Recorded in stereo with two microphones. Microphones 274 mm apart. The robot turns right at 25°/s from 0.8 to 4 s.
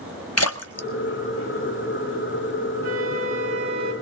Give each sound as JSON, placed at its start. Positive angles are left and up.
{"t": 0.4, "sound": "a splash", "side_deg": 65, "distance_m": 1.1}
{"t": 2.8, "sound": "a flute", "side_deg": -60, "distance_m": 3.0}